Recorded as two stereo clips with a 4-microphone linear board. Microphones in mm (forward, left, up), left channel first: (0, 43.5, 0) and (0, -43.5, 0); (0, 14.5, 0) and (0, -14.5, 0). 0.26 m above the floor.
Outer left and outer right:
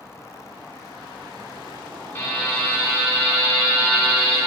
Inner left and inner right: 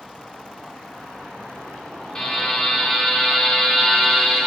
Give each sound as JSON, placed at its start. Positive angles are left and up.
{"t": 2.1, "sound": "a buzzer", "side_deg": 25, "distance_m": 2.5}